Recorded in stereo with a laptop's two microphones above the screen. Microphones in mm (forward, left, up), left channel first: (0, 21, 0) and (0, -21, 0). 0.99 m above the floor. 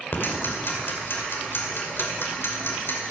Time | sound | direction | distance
0.1 | ticking | 70° left (ahead or behind) | 2.5 m